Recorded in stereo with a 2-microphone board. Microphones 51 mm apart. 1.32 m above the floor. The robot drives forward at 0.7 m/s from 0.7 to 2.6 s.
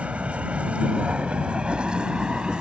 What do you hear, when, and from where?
0.0 s a vehicle: 30° right (ahead or behind); by 2.6 s 25° right (ahead or behind)